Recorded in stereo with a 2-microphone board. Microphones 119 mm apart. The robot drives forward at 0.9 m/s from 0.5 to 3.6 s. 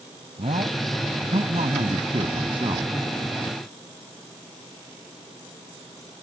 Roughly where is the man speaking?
Right.